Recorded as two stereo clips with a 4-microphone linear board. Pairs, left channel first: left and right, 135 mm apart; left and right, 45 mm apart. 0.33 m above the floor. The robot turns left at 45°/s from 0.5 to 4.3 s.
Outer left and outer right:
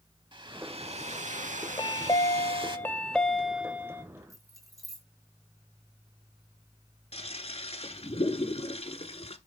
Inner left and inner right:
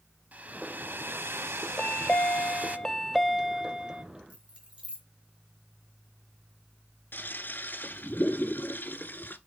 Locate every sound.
0.3 s a hair dryer: 40° right, 0.7 m; by 2.8 s 145° right, 0.7 m
1.8 s a chime: 70° left, 0.5 m; by 4.0 s 30° right, 0.5 m
4.3 s keys jangling: 25° right (ahead or behind), 2 m
7.1 s a toilet flushing: 50° left (ahead or behind), 0.8 m